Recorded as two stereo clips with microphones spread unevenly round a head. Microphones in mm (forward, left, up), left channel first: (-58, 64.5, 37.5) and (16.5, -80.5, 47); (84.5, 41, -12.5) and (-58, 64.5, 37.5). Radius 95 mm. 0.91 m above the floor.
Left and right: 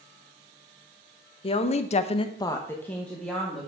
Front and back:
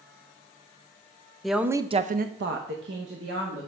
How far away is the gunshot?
I don't hear a gunshot.